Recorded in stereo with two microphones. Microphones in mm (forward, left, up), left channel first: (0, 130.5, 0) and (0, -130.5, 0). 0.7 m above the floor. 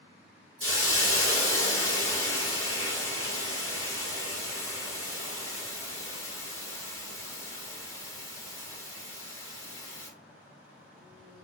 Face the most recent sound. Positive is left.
turn(degrees=55)  # may be behind; listen again after turning